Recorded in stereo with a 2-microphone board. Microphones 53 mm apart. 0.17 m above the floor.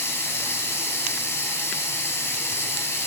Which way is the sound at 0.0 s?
55° left (ahead or behind).